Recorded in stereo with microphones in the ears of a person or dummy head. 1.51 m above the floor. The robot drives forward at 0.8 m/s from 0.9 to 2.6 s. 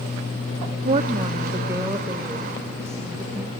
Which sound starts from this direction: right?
A woman speaking, at 0.8 s.